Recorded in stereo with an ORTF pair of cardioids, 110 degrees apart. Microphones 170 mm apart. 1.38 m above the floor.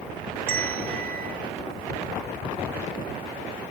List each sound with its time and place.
0.5 s a bell: 65° right, 6 m